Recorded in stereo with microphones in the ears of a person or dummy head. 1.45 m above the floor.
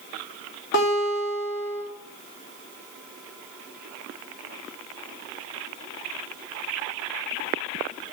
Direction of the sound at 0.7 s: 60° left (ahead or behind).